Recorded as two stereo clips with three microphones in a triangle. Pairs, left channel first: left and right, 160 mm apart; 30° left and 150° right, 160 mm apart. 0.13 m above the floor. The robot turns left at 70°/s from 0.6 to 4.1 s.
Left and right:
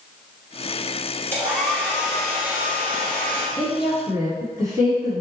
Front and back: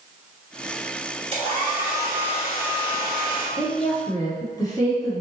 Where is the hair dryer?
155° right, 1.5 m; by 3.5 s 55° left, 1.5 m.